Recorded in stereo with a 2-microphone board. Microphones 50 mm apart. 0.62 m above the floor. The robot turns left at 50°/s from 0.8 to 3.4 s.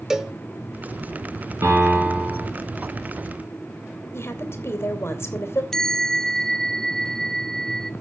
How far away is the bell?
About 0.6 m.